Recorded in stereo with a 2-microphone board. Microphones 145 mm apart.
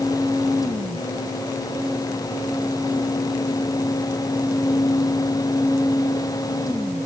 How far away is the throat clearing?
No throat clearing in this recording.